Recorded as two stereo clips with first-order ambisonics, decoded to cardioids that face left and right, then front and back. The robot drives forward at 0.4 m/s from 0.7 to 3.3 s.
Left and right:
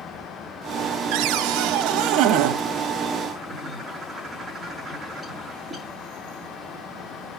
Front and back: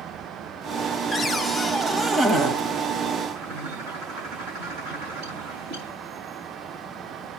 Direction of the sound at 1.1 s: 75° right.